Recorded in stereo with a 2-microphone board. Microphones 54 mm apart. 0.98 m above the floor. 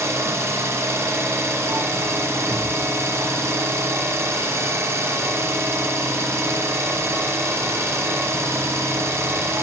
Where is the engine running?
60° right (ahead or behind), 0.9 m.